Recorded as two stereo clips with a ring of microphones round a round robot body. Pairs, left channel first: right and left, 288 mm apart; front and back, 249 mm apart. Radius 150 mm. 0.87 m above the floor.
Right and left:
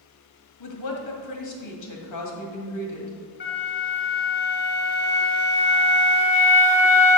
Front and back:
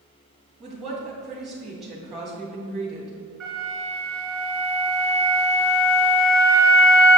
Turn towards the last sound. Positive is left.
turn(degrees=-85)